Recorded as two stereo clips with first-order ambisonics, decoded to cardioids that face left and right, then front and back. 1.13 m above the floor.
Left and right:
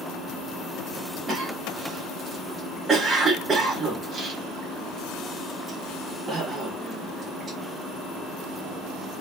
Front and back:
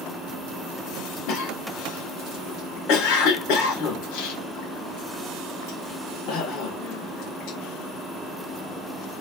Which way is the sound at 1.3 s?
20° right.